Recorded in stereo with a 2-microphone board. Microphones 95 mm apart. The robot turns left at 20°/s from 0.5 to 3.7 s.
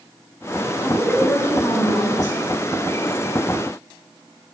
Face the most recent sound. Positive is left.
turn(degrees=105)